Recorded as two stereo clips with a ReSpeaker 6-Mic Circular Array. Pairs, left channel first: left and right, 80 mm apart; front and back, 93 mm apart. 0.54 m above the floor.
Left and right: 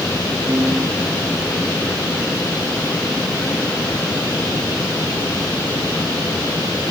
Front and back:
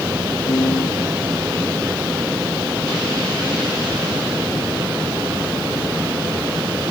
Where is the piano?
40° right, 2.5 m.